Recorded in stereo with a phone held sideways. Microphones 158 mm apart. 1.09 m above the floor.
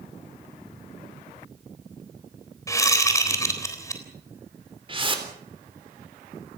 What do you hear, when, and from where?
2.7 s a whoosh: 20° left (ahead or behind), 3.5 m
4.9 s a whoosh: 30° right (ahead or behind), 3.5 m